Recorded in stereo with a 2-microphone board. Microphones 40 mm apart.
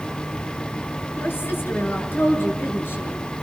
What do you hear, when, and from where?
1.2 s a woman speaking: 70° left (ahead or behind), 5.5 m; by 3.2 s 80° left, 6.5 m